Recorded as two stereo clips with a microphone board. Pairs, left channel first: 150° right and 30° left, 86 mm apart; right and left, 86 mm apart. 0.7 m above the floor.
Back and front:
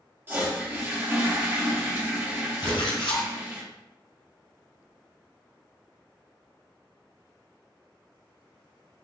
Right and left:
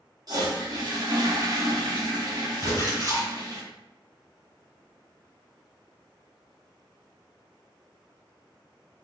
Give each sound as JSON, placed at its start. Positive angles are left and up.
{"t": 0.3, "sound": "a toilet flushing", "azimuth_deg": 85, "distance_m": 1.2}
{"t": 2.6, "sound": "a splash", "azimuth_deg": -140, "distance_m": 1.7}